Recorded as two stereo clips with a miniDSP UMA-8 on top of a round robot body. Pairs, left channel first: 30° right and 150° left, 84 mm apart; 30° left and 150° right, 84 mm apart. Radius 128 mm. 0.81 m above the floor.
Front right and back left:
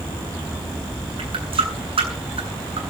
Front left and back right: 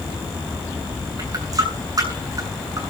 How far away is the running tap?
About 8 m.